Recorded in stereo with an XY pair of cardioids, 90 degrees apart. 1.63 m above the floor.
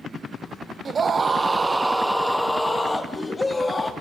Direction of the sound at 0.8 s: 50° right.